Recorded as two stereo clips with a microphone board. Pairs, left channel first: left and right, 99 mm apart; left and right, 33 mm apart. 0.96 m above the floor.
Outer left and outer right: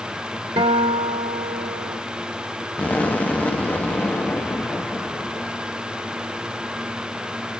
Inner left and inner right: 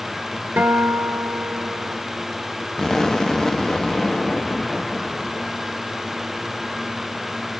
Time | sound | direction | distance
0.6 | a guitar | 80° right | 1.4 m
2.8 | an explosion | 15° left (ahead or behind) | 0.7 m